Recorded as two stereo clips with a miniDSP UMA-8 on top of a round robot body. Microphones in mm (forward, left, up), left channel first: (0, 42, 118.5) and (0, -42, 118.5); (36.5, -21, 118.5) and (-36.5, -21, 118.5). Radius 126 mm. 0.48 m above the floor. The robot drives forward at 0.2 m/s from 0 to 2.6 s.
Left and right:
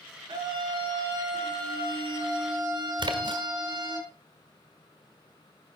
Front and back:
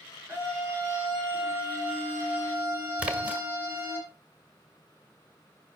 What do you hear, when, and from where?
0.3 s a scream: 120° right, 8 m
3.0 s a splash: 105° right, 1.9 m